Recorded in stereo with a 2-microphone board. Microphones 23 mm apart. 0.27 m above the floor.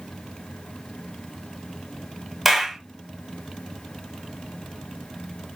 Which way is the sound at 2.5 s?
Centre (ahead or behind).